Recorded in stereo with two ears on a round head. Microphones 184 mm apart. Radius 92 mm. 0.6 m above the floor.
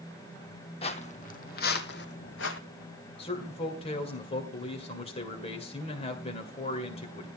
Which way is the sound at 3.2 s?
30° left (ahead or behind).